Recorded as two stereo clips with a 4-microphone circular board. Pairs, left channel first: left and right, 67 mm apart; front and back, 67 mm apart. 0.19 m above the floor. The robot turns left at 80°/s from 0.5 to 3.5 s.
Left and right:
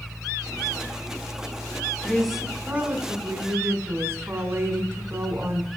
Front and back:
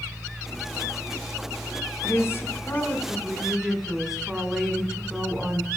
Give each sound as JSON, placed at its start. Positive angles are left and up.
{"t": 2.0, "sound": "a woman speaking", "azimuth_deg": 20, "distance_m": 1.2}